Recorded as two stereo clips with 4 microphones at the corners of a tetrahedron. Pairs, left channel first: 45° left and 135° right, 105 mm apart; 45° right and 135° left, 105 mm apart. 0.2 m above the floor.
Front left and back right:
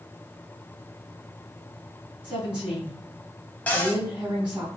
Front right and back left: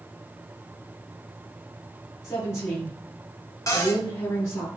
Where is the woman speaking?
65° right, 1.6 m.